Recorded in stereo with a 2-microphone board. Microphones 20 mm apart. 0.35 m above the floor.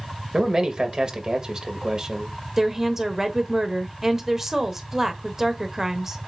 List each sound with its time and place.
0.3 s a man speaking: 40° right (ahead or behind), 1.3 m
2.6 s a woman speaking: 20° right (ahead or behind), 0.9 m